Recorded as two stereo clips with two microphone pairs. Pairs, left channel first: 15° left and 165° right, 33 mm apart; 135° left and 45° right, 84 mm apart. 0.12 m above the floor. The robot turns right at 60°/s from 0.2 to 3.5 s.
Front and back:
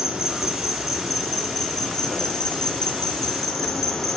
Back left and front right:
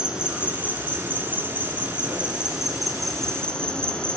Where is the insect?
115° right, 1.2 m; by 4.2 s 85° left, 1.2 m.